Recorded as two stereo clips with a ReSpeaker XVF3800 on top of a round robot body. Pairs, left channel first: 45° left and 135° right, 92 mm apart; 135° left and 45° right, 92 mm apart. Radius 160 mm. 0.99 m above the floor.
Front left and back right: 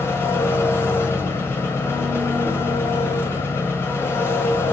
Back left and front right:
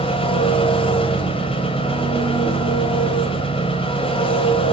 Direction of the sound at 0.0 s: 110° left.